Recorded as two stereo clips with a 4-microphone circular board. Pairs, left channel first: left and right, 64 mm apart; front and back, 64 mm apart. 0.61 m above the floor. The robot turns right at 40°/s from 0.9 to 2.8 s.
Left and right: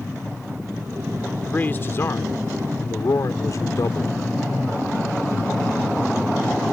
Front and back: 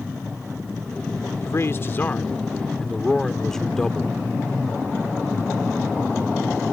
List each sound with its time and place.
1.4 s a man speaking: 25° left; by 4.2 s 80° left